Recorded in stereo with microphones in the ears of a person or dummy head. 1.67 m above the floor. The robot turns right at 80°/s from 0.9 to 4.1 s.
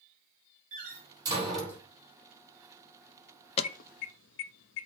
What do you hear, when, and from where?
0.7 s a door slam: 50° right (ahead or behind), 4.5 m; by 1.8 s 25° left (ahead or behind), 4.5 m
3.6 s an alarm: 35° left (ahead or behind), 0.6 m; by 4.9 s 65° left (ahead or behind), 0.6 m